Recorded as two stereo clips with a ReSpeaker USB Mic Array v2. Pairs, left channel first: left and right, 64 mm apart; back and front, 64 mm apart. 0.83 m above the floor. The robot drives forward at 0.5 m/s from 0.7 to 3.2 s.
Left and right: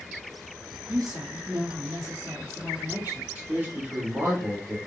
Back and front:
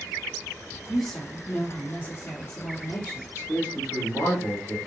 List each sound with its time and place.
0.9 s a woman speaking: 90° right, 0.9 m; by 3.2 s 145° right, 1.4 m
3.4 s a man speaking: 150° right, 1.5 m